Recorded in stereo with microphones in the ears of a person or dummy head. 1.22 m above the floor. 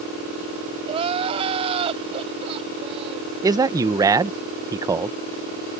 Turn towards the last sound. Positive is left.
turn(degrees=-15)  # may be behind; listen again after turning